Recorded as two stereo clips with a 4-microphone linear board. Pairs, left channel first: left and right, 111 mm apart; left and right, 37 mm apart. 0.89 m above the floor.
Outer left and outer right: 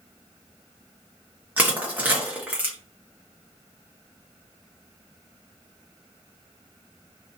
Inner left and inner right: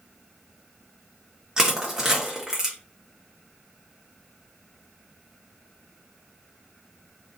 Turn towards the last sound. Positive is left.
turn(degrees=-15)  # may be behind; listen again after turning